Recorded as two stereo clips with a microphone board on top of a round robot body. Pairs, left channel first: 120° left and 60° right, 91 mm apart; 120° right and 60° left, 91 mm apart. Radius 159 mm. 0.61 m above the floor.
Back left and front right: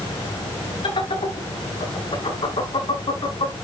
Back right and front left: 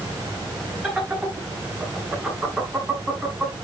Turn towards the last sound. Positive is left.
turn(degrees=145)